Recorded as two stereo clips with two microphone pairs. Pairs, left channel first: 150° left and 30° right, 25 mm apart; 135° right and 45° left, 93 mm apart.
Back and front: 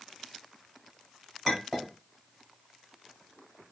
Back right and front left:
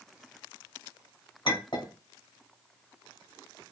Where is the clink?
130° right, 1.7 m.